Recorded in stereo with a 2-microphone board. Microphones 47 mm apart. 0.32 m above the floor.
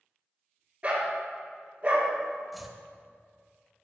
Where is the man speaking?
I don't hear a man speaking.